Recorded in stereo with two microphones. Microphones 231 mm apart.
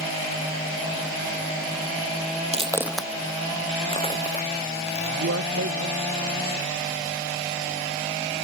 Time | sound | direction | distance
2.5 | footsteps | 30° right (ahead or behind) | ?
5.2 | a man speaking | 80° right | ?